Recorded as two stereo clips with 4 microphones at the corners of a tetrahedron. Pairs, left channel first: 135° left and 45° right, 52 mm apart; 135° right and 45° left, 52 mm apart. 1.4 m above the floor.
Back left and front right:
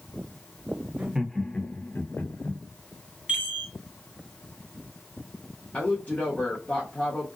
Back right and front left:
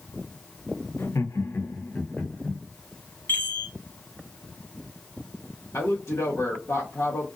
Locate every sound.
1.0 s laughter: 110° right, 0.5 m; by 2.6 s 165° left, 1.2 m
3.3 s a chime: 105° right, 1.6 m
5.7 s a woman speaking: 165° right, 0.9 m